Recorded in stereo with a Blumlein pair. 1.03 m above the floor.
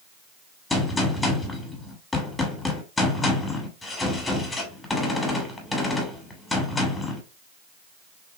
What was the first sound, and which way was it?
A gunshot, 10° left.